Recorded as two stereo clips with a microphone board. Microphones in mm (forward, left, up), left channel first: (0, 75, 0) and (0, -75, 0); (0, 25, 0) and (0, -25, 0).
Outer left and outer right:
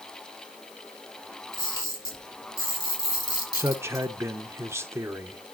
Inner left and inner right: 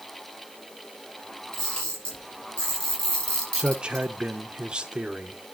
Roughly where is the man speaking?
Centre.